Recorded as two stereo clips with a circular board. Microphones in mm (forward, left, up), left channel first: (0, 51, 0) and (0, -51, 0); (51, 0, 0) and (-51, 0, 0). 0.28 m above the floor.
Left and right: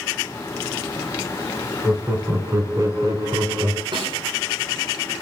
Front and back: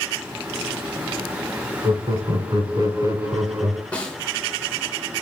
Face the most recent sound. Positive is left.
turn(degrees=-75)